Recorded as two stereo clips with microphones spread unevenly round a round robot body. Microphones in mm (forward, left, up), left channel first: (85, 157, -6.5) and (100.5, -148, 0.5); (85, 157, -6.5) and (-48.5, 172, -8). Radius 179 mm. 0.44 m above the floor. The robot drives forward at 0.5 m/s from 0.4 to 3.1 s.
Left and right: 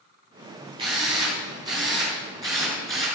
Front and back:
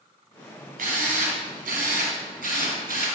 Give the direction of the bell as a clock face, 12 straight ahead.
I don't hear a bell.